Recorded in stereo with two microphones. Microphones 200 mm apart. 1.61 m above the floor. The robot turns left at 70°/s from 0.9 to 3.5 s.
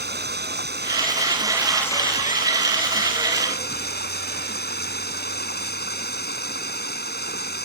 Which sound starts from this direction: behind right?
Running water, at 0.0 s.